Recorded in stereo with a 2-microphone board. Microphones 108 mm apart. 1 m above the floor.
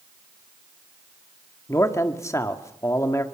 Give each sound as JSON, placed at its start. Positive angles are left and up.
{"t": 1.7, "sound": "a man speaking", "side_deg": 25, "distance_m": 1.9}